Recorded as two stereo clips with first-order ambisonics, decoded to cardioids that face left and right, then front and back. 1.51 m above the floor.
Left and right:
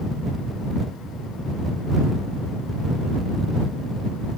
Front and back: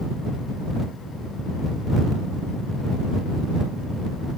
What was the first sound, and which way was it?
Only background noise.